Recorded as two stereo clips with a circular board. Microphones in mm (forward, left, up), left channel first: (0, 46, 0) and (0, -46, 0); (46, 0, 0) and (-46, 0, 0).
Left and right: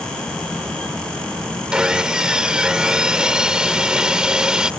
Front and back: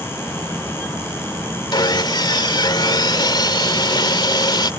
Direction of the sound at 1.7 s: 10° right.